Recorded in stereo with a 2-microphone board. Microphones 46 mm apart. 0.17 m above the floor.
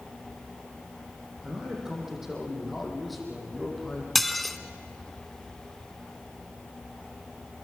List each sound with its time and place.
1.4 s a man speaking: 15° right (ahead or behind), 7.5 m; by 4.0 s 10° left (ahead or behind), 7.5 m
4.2 s dishes clattering: 5° left (ahead or behind), 0.9 m